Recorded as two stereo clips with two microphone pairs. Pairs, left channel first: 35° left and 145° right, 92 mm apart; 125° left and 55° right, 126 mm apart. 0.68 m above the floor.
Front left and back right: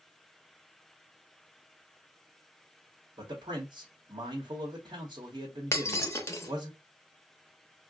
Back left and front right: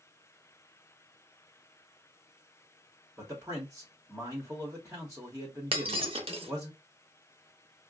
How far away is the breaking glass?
About 0.7 m.